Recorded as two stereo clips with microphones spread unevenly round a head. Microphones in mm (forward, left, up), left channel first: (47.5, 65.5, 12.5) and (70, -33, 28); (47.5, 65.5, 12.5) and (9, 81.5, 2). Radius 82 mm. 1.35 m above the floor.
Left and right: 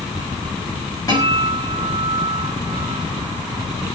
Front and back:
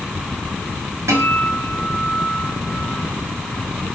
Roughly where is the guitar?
Behind.